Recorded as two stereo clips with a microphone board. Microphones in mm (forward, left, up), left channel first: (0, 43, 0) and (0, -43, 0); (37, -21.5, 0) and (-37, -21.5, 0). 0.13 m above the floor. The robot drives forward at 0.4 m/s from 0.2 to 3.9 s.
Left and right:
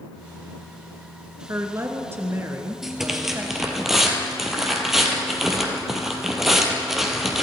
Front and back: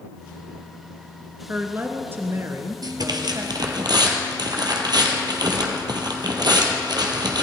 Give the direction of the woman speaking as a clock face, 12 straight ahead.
4 o'clock.